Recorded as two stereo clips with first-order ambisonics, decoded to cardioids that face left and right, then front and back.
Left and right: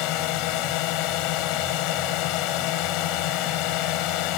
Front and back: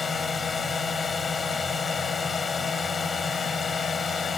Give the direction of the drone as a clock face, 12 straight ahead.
10 o'clock.